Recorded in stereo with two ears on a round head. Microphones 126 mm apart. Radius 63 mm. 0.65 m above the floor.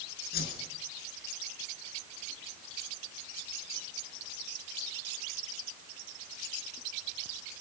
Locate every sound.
0.3 s a whoosh: 85° left, 5.5 m